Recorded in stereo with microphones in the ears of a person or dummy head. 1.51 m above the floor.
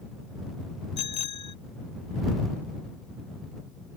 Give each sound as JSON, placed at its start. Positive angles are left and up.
{"t": 1.0, "sound": "a bicycle bell", "side_deg": 25}